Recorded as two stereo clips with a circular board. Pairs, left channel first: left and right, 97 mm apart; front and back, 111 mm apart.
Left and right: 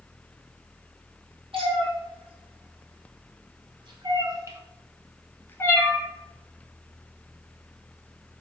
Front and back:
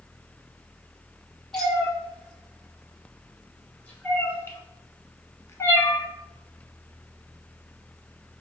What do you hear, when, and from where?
1.5 s a cat meowing: 85° right, 1.9 m; by 6.1 s 65° left, 0.7 m